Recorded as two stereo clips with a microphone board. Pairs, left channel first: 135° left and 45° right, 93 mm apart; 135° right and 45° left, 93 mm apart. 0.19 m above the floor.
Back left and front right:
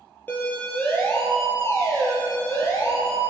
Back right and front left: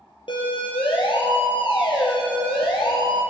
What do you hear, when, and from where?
0.3 s a siren: 155° right, 6.5 m; by 3.2 s 170° right, 9.5 m